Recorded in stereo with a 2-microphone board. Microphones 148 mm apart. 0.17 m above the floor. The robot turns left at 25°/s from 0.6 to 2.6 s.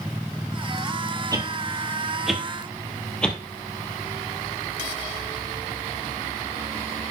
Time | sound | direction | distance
1.3 | a whoosh | 25° right (ahead or behind) | 1.8 m